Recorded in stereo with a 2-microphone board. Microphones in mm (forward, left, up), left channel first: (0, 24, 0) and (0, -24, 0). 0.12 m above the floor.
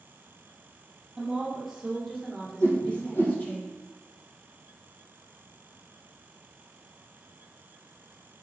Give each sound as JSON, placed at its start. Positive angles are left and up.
{"t": 1.2, "sound": "a woman speaking", "side_deg": -5, "distance_m": 2.5}
{"t": 2.6, "sound": "a whoosh", "side_deg": 50, "distance_m": 1.8}